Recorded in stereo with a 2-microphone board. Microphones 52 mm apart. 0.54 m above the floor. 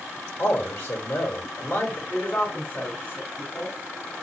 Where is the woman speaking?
40° left (ahead or behind), 1.8 m.